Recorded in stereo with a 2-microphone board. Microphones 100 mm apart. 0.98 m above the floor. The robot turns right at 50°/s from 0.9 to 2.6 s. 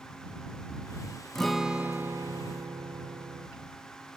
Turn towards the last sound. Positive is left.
turn(degrees=-125)